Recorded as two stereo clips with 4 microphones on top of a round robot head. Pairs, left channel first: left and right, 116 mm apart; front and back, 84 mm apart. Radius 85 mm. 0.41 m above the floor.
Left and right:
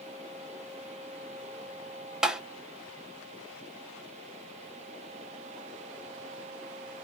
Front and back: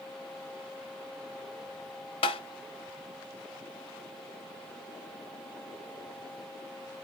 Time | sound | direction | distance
2.2 | tapping | 5° right | 0.6 m